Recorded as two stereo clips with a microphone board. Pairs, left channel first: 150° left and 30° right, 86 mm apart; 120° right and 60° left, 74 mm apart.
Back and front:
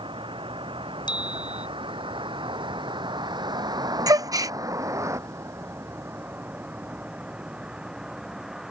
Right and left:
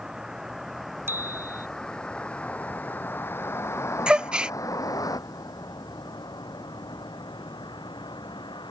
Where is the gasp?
15° right.